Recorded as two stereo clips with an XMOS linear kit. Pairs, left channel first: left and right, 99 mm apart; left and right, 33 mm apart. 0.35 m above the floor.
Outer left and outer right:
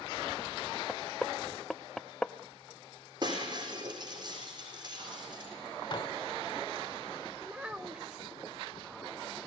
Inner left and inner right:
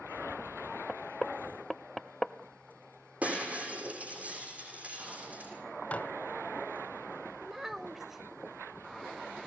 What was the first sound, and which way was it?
Knocking, 5° left (ahead or behind).